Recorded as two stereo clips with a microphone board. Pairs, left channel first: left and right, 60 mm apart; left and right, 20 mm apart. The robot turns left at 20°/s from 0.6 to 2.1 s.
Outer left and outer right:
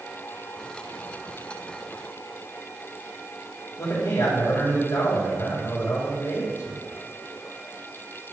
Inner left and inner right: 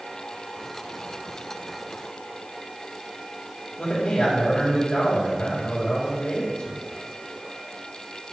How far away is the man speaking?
About 4 m.